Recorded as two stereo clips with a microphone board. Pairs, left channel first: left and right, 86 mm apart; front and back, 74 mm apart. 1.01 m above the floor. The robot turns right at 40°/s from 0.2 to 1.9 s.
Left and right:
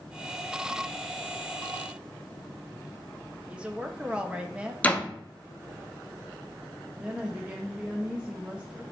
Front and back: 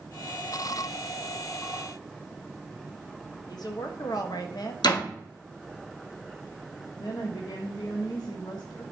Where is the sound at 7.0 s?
15° right, 1.1 m.